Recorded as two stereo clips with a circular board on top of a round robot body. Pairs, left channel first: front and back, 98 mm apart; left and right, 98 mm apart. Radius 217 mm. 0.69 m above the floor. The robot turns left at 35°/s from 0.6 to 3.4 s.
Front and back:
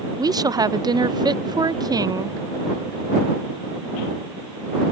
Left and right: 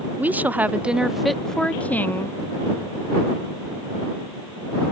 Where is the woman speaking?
155° right; by 2.4 s 140° left.